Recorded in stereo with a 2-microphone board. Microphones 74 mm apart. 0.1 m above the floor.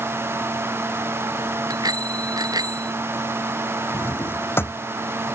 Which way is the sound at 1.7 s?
60° right (ahead or behind).